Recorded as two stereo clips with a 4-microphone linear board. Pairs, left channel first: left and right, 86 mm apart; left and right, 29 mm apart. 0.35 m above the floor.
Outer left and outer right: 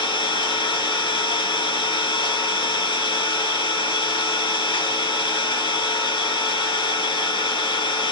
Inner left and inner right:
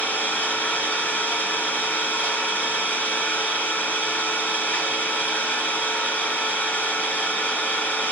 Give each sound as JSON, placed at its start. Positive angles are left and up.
{"t": 0.0, "sound": "an engine running", "side_deg": 65, "distance_m": 2.5}